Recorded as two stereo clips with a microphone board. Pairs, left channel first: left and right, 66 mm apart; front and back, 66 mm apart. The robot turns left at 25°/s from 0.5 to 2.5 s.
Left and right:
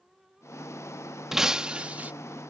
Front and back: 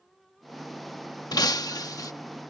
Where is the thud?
I don't hear a thud.